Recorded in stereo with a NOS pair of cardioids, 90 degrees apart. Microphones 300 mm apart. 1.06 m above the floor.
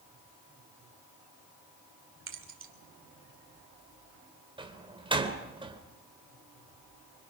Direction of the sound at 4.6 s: 15° right.